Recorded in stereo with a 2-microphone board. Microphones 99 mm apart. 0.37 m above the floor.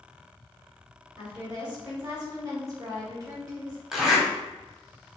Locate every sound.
1.2 s a woman speaking: 40° right (ahead or behind), 1.7 m
3.9 s a zipper: 5° right (ahead or behind), 0.9 m